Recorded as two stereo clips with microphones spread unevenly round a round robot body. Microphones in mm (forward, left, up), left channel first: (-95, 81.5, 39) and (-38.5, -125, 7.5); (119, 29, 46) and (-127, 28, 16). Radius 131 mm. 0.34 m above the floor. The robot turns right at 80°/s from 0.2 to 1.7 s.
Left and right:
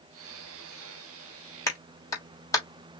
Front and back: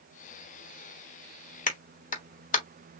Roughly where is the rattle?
No rattle in this recording.